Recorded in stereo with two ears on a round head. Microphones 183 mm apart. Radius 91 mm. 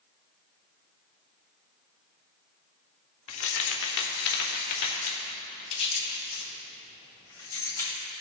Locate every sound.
3.3 s keys jangling: 70° left (ahead or behind), 1.3 m; by 8.0 s 15° left (ahead or behind), 2.5 m